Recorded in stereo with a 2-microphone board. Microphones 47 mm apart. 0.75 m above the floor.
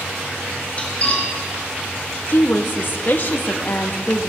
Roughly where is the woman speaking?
Left.